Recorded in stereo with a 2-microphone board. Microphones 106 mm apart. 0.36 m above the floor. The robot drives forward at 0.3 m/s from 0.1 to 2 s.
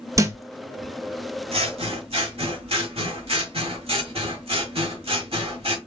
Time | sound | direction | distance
0.2 | a thud | 30° right (ahead or behind) | 0.8 m
1.5 | scissors | 65° right (ahead or behind) | 1.2 m